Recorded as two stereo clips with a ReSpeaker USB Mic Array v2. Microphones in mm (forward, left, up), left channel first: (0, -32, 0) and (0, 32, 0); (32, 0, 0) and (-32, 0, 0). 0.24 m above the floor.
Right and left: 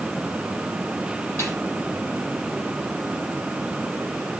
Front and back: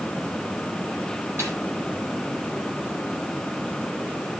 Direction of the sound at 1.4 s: 130° right.